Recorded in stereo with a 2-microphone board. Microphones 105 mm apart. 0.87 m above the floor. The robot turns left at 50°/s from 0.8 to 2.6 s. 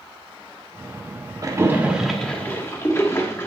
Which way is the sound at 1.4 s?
30° right (ahead or behind).